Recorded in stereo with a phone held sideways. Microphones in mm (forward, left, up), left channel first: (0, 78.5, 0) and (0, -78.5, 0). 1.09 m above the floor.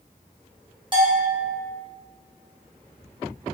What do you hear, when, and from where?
0.9 s a bell: 30° right (ahead or behind), 0.7 m